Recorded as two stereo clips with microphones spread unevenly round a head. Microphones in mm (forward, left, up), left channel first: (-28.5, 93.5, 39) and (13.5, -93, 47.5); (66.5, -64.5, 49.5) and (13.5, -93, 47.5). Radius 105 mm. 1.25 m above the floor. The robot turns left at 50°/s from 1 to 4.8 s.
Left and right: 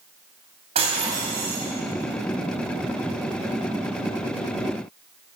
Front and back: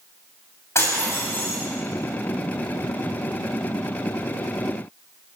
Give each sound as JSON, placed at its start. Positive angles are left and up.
{"t": 0.8, "sound": "breaking glass", "azimuth_deg": -15, "distance_m": 6.0}